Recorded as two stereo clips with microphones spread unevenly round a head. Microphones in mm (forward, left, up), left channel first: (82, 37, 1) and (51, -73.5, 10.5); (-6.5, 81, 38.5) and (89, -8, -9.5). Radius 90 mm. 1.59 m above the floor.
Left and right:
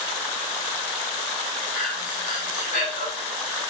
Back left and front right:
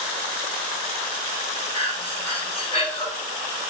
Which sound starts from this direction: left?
Breathing, at 1.7 s.